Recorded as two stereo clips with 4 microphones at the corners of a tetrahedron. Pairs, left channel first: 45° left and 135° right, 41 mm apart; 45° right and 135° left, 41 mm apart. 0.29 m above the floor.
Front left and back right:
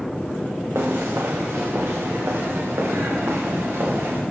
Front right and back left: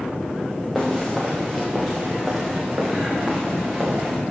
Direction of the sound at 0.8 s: 135° right.